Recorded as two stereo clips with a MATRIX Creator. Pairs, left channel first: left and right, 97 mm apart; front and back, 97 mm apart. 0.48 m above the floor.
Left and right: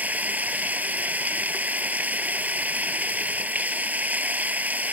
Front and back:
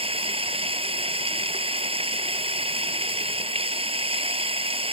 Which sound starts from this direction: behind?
Running water, at 0.0 s.